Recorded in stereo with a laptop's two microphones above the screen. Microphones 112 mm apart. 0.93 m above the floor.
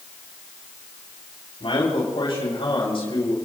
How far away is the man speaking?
About 6.5 m.